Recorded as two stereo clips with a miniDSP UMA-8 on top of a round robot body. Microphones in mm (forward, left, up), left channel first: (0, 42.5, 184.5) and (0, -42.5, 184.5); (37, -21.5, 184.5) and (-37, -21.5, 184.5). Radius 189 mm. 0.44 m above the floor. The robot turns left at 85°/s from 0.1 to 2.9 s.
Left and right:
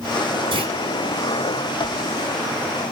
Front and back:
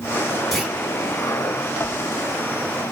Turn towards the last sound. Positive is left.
turn(degrees=75)